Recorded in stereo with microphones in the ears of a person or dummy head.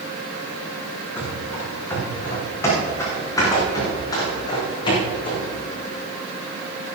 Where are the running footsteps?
5° left (ahead or behind), 5.5 m; by 5.5 s 30° left (ahead or behind), 4 m.